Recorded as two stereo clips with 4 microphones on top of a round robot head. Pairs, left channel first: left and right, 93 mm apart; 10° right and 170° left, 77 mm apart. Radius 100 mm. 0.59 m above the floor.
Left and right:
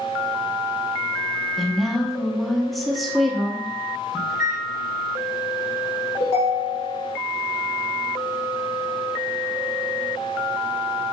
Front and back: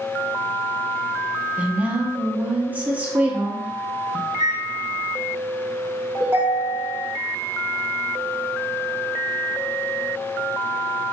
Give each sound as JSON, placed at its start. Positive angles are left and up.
{"t": 1.6, "sound": "a woman speaking", "azimuth_deg": 180, "distance_m": 0.9}
{"t": 4.3, "sound": "a microwave", "azimuth_deg": 5, "distance_m": 2.0}
{"t": 6.2, "sound": "a ringtone", "azimuth_deg": 105, "distance_m": 1.6}